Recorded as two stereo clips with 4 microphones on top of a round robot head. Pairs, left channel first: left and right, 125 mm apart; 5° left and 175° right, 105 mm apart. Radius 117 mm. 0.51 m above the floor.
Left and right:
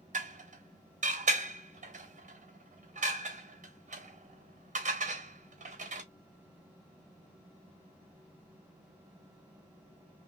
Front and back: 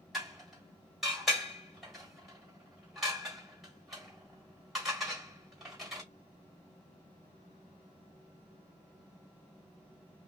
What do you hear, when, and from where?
0.1 s dishes clattering: 90° right, 1.3 m